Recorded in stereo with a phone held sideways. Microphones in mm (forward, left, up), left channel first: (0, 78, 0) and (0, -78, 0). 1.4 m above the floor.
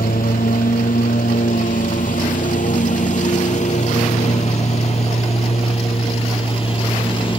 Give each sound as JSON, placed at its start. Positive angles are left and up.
{"t": 0.0, "sound": "a lawn mower", "side_deg": 70}